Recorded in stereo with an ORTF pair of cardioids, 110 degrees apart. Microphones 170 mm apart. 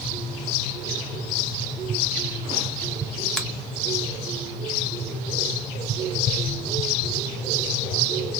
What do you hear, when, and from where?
3.4 s a finger snap: 5° left, 1.5 m